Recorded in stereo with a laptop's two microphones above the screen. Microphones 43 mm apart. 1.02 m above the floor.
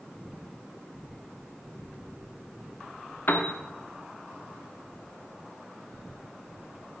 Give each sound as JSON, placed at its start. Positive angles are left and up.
{"t": 3.3, "sound": "a piano", "side_deg": 45, "distance_m": 0.8}